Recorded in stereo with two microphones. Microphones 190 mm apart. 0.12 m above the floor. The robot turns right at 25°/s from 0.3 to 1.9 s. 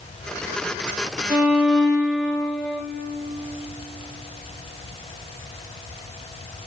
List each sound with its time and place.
1.3 s a violin: 10° right (ahead or behind), 4 m; by 2.8 s 5° left (ahead or behind), 4 m